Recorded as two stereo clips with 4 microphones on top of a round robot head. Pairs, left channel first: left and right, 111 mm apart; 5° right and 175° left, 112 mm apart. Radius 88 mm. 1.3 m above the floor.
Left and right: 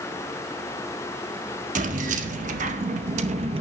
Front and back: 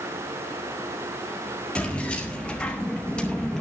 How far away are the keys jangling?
About 1.6 m.